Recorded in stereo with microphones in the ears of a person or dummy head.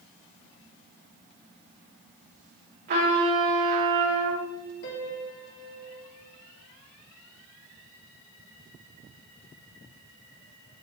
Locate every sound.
2.9 s a trumpet: 45° right (ahead or behind), 4 m
4.8 s a piano: 65° left (ahead or behind), 2 m